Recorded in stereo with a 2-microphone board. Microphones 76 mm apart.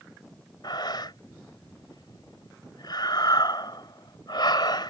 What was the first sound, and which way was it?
Breathing, 70° left (ahead or behind).